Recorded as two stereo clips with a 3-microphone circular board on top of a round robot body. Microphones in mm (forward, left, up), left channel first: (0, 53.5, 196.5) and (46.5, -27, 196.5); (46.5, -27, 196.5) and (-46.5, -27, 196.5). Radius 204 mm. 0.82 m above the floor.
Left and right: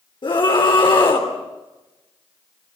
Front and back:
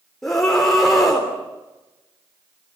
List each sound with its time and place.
0.2 s a scream: 85° left, 3 m